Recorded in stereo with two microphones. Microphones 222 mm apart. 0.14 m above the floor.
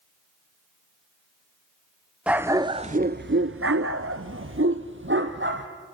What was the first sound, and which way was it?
A dog barking, 5° right (ahead or behind).